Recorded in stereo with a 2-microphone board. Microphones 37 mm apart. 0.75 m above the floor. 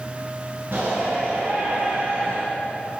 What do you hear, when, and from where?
0.7 s a shout: 50° right (ahead or behind), 8.5 m; by 2.4 s 35° right (ahead or behind), 7 m